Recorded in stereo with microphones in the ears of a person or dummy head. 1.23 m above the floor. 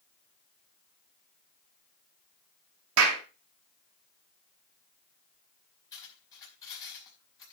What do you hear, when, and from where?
3.0 s a clap: 90° right, 2.5 m
5.9 s cutlery clinking: 15° left (ahead or behind), 4.5 m